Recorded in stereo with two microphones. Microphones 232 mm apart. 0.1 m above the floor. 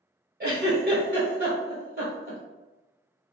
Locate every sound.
0.4 s a giggle: 45° right (ahead or behind), 1.2 m